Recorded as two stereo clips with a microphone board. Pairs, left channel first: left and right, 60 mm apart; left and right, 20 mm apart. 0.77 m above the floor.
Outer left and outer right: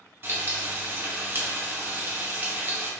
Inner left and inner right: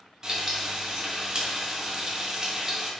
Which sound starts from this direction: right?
Frying, at 0.2 s.